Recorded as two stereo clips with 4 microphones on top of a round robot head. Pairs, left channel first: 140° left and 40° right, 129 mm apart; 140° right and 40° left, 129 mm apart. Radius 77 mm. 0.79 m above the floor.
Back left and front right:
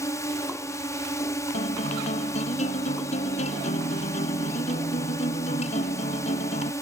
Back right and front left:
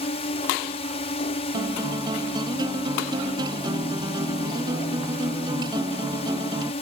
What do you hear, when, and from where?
0.0 s a drone: 160° right
1.5 s a guitar: 100° left